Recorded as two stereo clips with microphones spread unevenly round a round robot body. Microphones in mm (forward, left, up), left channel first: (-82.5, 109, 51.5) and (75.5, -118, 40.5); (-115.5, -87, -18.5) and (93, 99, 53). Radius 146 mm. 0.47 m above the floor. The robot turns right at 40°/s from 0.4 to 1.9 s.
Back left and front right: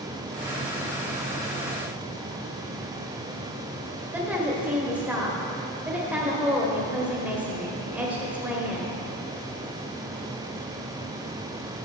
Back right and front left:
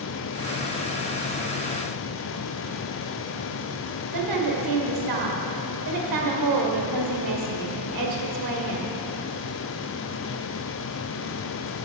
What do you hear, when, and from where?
4.1 s a woman speaking: 30° left, 1.9 m